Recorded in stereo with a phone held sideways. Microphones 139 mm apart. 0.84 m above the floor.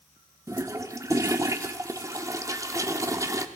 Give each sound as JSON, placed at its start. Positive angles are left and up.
{"t": 0.5, "sound": "a toilet flushing", "side_deg": -25, "distance_m": 0.6}